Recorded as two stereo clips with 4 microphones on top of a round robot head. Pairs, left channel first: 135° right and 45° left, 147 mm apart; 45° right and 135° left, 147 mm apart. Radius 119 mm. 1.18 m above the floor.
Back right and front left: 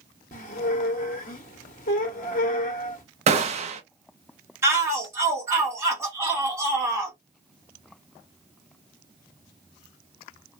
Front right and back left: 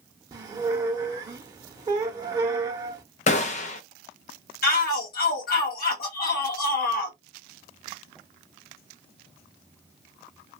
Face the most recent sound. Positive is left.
turn(degrees=-25)